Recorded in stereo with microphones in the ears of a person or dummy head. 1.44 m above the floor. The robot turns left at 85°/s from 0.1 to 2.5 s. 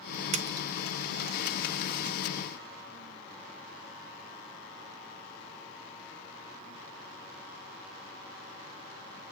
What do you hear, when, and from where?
0.3 s a splash: 35° right (ahead or behind), 0.6 m; by 0.7 s 10° right (ahead or behind), 0.6 m